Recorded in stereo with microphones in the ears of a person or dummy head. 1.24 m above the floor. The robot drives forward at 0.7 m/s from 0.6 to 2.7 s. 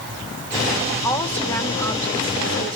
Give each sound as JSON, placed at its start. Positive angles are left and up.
{"t": 1.0, "sound": "a woman speaking", "side_deg": 15, "distance_m": 2.0}